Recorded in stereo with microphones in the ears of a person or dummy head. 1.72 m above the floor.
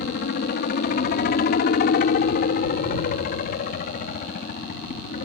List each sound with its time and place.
0.0 s a helicopter: 50° left (ahead or behind); by 5.2 s 45° left (ahead or behind)